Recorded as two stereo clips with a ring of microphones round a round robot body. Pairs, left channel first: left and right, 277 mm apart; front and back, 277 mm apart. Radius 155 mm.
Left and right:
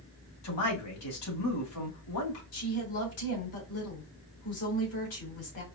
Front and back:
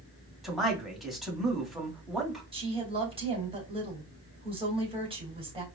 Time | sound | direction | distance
0.4 | a man speaking | 90° left | 2 m
2.5 | a woman speaking | 110° left | 2.5 m